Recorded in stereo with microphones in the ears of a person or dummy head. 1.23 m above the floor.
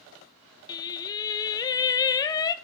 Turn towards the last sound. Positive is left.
turn(degrees=25)  # may be behind; listen again after turning